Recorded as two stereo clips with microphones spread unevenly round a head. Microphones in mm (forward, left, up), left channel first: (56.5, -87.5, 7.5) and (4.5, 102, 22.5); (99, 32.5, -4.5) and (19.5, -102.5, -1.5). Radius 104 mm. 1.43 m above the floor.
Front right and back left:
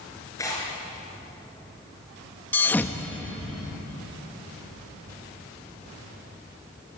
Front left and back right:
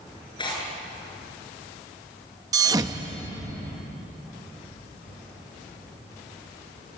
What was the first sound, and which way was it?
Tearing paper, straight ahead.